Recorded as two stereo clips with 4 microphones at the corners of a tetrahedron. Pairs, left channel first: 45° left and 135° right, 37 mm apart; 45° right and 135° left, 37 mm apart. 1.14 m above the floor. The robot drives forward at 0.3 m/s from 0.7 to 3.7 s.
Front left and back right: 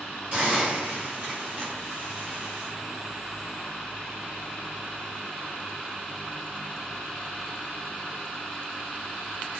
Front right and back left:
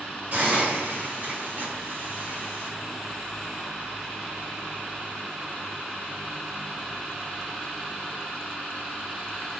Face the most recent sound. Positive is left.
turn(degrees=-175)